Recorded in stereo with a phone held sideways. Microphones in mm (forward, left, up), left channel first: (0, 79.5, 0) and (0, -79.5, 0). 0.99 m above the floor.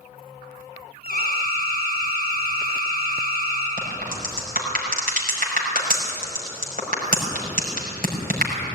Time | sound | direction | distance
1.0 | an alarm | 75° right (ahead or behind) | 8.5 m
3.8 | a crack | 65° right (ahead or behind) | 5.5 m